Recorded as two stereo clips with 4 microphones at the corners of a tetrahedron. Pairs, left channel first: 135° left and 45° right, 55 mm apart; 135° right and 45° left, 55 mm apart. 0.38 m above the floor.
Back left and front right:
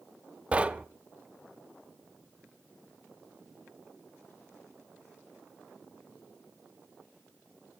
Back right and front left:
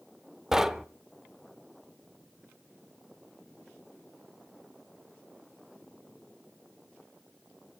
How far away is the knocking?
About 0.6 m.